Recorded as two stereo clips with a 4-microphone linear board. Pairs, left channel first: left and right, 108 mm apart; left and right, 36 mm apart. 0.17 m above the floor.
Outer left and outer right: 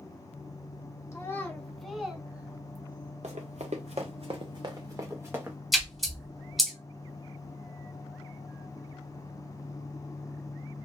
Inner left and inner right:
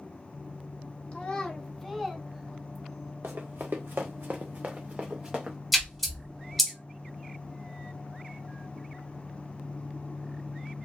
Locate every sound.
1.1 s a child speaking: 30° left (ahead or behind), 0.7 m; by 3.1 s 20° right (ahead or behind), 1.5 m
3.2 s running footsteps: 85° right, 0.9 m; by 5.6 s 15° right (ahead or behind), 1.1 m
5.7 s a splash: centre (ahead or behind), 1.0 m